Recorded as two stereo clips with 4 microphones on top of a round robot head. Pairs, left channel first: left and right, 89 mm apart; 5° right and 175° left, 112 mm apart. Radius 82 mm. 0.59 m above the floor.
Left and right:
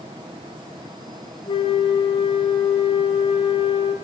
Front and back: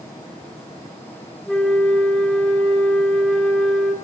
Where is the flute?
80° left, 3 m.